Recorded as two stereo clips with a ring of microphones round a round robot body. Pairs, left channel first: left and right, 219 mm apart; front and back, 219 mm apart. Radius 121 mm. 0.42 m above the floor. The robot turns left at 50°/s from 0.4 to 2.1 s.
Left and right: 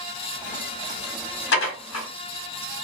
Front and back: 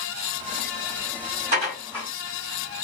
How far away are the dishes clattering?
About 1.4 m.